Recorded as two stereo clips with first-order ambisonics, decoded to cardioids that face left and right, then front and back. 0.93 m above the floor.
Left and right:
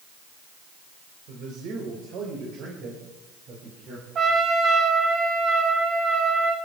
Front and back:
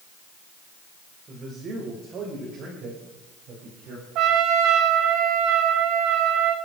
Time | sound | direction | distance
1.3 | a man speaking | 120° right | 3 m
4.2 | a trumpet | 150° right | 3.5 m